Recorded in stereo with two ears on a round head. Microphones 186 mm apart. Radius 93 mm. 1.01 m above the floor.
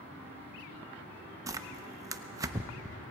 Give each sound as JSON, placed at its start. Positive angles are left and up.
{"t": 1.5, "sound": "tearing paper", "side_deg": -15, "distance_m": 0.7}